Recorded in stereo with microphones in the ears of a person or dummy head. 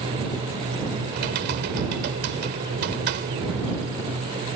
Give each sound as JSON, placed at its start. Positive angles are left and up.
{"t": 1.1, "sound": "typing on a keyboard", "side_deg": -55}